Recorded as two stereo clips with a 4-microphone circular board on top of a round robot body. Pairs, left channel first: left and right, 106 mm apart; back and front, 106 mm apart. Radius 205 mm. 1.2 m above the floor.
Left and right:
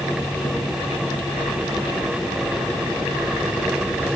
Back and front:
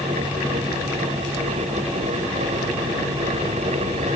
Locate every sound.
Only background noise.